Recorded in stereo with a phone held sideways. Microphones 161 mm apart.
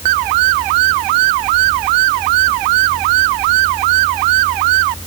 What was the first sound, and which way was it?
Only background noise.